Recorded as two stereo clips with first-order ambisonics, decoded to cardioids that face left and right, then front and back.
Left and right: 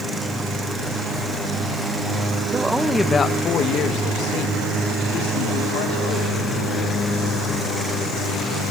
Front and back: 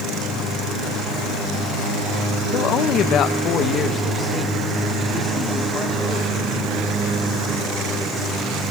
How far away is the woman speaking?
About 1.0 m.